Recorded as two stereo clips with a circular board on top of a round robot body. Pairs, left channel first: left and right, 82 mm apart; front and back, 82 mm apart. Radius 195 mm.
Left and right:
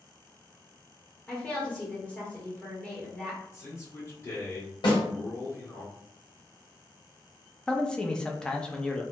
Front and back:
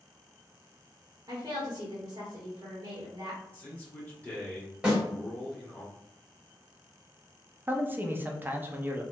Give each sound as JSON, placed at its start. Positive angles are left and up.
{"t": 1.3, "sound": "a woman speaking", "azimuth_deg": 165, "distance_m": 1.2}
{"t": 3.5, "sound": "a man speaking", "azimuth_deg": 60, "distance_m": 1.5}
{"t": 4.8, "sound": "a snare drum", "azimuth_deg": 100, "distance_m": 1.8}
{"t": 7.7, "sound": "a man speaking", "azimuth_deg": 155, "distance_m": 0.7}